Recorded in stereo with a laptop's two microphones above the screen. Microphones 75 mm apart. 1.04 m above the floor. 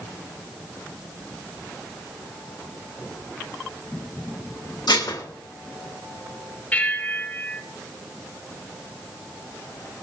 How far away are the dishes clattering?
About 2 m.